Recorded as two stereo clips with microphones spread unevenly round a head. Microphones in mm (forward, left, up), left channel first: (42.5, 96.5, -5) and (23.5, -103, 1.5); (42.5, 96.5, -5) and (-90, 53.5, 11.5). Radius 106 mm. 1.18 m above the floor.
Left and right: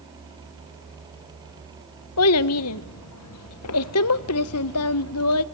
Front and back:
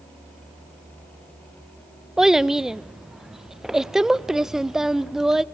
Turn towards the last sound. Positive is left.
turn(degrees=110)